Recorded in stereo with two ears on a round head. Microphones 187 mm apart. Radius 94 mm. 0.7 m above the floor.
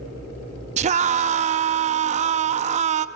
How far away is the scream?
About 0.6 m.